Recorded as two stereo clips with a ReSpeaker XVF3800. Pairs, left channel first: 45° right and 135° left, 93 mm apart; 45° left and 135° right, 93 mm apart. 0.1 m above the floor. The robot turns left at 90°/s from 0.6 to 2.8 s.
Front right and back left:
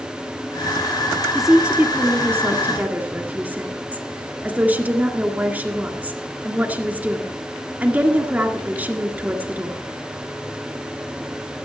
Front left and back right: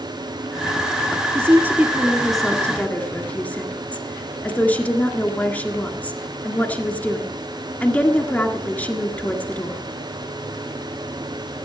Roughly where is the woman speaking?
Behind right.